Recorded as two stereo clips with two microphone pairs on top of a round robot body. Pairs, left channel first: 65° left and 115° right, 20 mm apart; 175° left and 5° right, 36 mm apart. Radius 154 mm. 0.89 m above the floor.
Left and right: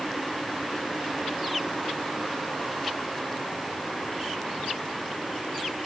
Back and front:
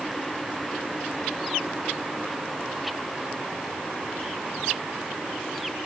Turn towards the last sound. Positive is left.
No sound to turn to.